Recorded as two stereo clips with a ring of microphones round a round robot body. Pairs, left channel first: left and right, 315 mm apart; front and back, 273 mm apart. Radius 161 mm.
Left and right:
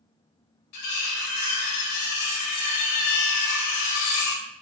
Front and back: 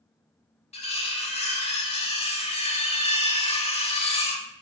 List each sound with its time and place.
0.7 s cutlery clinking: 65° left, 0.8 m